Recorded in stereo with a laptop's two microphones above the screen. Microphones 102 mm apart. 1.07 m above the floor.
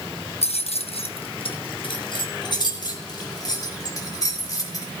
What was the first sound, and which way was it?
Keys jangling, 80° left.